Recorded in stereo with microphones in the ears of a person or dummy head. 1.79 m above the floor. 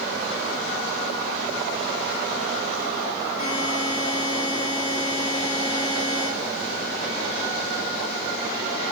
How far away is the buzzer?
About 6 m.